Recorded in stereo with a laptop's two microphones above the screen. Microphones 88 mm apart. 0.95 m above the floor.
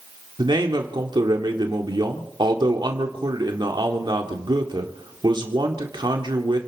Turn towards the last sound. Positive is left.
turn(degrees=-60)  # may be behind; listen again after turning